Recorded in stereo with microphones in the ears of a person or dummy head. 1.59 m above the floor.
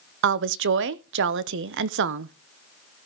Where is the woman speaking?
65° right (ahead or behind), 0.7 m.